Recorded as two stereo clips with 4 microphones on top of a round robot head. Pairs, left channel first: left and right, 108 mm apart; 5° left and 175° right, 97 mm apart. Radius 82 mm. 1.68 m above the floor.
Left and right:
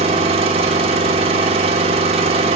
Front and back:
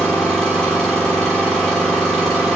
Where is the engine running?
75° right, 1.6 m.